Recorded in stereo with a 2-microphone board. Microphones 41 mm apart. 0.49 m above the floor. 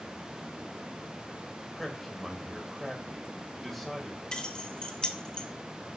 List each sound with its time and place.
1.7 s a man speaking: centre (ahead or behind), 2.5 m
4.3 s keys jangling: 25° left (ahead or behind), 1.1 m